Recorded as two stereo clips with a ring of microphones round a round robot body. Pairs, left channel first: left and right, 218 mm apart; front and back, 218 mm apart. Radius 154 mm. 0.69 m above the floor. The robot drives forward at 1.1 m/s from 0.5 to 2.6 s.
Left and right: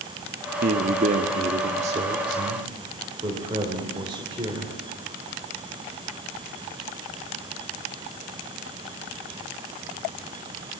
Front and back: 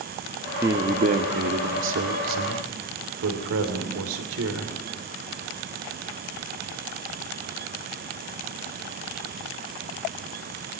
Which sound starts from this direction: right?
A man speaking, at 0.6 s.